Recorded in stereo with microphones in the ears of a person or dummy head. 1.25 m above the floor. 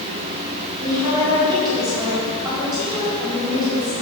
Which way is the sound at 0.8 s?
25° right (ahead or behind).